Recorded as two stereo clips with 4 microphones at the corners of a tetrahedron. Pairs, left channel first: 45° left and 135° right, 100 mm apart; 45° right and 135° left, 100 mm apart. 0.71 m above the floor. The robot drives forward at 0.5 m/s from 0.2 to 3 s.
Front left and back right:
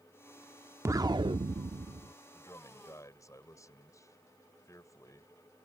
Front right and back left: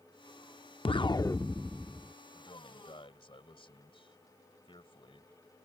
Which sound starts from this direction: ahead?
A man speaking, at 2.3 s.